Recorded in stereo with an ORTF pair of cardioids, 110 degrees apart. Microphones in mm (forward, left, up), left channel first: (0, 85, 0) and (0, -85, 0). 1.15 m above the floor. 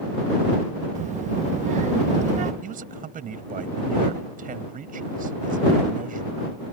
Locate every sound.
0.9 s a child speaking: 45° right
2.6 s a man speaking: 50° right